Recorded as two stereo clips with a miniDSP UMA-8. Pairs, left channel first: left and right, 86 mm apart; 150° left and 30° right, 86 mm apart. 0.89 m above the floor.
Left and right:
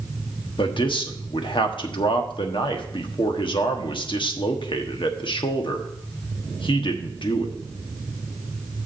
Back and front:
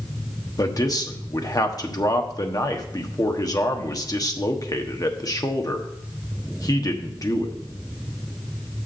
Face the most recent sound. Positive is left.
turn(degrees=105)